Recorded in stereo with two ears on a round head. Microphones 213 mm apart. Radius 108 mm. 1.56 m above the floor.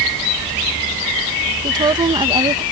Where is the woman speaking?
20° right (ahead or behind).